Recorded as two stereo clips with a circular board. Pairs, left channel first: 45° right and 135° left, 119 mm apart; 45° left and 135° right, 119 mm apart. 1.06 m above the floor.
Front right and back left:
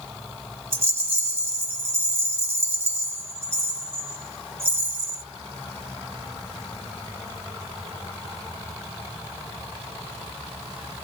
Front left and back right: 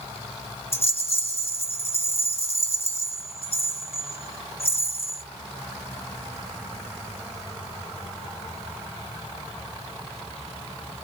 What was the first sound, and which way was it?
A rattle, 65° left.